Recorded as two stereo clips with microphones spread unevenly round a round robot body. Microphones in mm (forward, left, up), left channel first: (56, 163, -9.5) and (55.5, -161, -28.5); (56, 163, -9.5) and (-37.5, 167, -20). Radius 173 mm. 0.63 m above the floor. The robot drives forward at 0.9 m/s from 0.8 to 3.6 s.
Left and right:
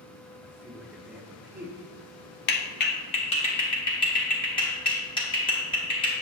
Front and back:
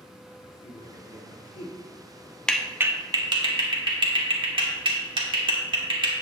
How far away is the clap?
About 0.5 m.